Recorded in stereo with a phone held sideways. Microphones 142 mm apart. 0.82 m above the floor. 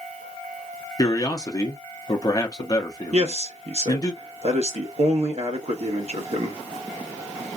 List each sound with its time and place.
1.0 s a man speaking: 30° left (ahead or behind), 0.9 m
3.1 s a man speaking: 55° right (ahead or behind), 1.1 m